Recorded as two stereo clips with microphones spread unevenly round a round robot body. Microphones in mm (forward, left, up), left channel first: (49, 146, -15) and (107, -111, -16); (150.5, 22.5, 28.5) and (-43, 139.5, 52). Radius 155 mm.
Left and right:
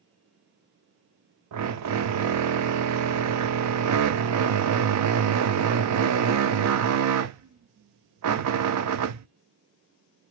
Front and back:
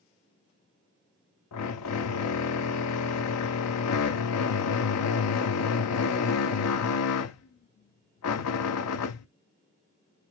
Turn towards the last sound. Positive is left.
turn(degrees=-50)